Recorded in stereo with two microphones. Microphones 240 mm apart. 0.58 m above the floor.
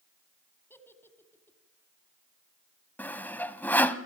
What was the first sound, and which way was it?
A giggle, 10° left (ahead or behind).